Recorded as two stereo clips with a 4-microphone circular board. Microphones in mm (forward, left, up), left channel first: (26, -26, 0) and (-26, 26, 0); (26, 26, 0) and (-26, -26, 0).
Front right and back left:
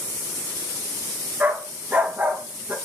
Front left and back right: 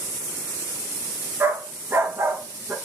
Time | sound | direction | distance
1.4 | a dog barking | 170° right | 0.6 m